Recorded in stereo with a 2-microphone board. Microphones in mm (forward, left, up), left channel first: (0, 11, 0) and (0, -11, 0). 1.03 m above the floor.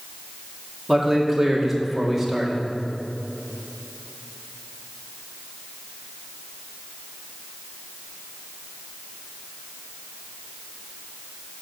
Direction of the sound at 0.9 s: 10° right (ahead or behind).